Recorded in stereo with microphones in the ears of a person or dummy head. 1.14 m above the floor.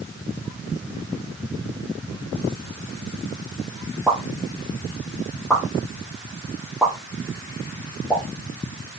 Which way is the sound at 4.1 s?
Centre (ahead or behind).